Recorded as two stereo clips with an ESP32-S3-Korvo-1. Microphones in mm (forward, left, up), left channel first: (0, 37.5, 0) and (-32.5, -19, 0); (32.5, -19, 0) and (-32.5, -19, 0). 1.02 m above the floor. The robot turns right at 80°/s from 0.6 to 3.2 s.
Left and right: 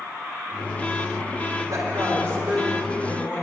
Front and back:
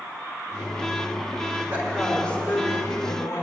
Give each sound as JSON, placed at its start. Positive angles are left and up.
{"t": 1.7, "sound": "a woman speaking", "azimuth_deg": -120, "distance_m": 4.5}